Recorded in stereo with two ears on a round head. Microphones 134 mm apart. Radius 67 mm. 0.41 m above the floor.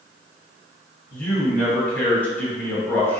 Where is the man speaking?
10° left (ahead or behind), 1.4 m.